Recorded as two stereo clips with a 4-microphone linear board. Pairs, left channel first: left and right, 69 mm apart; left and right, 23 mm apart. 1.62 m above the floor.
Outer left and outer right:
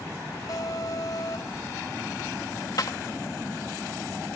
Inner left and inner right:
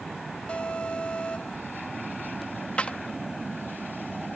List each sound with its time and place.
0.5 s an alarm: 70° left (ahead or behind)
2.8 s a clap: 80° left